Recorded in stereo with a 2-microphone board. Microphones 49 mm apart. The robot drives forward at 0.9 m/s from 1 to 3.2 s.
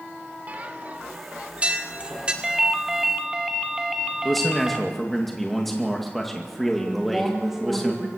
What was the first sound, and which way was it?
A bell, 35° right (ahead or behind).